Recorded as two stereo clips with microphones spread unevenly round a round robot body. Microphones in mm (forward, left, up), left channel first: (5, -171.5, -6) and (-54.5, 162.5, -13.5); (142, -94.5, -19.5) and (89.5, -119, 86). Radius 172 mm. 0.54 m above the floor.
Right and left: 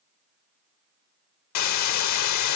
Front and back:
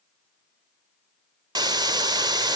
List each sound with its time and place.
1.6 s a hiss: 120° right